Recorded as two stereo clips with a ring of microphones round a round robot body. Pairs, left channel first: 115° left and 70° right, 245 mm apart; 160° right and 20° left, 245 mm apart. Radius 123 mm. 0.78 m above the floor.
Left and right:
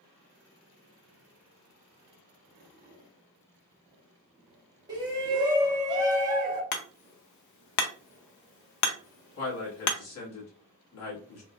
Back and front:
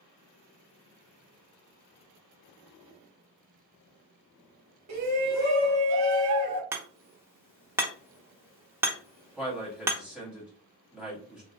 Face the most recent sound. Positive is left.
turn(degrees=110)